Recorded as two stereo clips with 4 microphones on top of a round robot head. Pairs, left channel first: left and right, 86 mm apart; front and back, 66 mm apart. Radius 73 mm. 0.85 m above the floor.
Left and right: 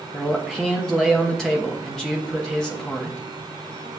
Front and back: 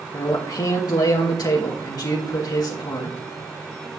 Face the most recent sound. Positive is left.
turn(degrees=5)